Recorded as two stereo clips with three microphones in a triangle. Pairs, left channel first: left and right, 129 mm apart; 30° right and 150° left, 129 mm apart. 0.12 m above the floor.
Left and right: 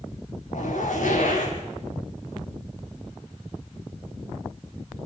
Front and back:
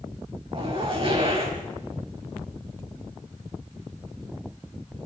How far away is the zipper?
About 5 m.